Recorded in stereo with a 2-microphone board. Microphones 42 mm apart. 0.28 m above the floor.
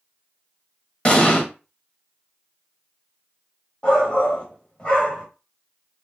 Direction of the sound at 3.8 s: 30° left (ahead or behind).